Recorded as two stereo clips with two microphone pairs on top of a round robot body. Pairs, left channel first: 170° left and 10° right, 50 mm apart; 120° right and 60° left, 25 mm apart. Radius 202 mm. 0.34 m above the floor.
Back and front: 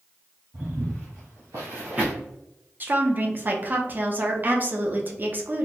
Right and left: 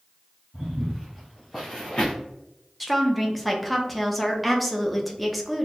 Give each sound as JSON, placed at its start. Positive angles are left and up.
{"t": 0.5, "sound": "footsteps", "azimuth_deg": 5, "distance_m": 1.4}
{"t": 2.8, "sound": "a woman speaking", "azimuth_deg": -25, "distance_m": 1.0}